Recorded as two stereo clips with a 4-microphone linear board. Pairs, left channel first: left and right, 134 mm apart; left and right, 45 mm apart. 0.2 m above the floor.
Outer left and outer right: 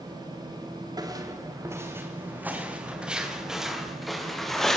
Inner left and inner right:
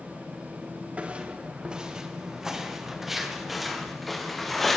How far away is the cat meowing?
No cat meowing in this recording.